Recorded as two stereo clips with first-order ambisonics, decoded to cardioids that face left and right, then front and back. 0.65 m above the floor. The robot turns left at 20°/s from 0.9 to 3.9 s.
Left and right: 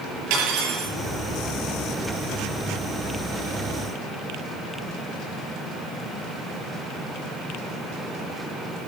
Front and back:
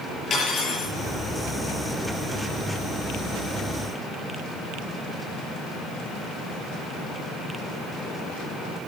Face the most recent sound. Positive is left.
turn(degrees=-125)